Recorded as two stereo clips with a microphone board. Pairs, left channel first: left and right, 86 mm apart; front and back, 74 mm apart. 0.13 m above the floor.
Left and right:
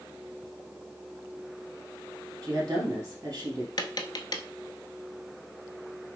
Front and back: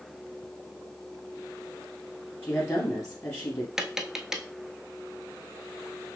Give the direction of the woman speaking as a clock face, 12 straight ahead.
2 o'clock.